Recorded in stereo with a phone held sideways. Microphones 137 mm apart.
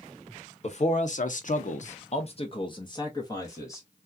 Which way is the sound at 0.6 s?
50° left (ahead or behind).